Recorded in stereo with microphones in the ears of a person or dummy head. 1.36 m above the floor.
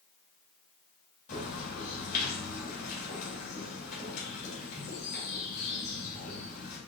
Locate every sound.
1.3 s a bird: 45° left (ahead or behind), 2 m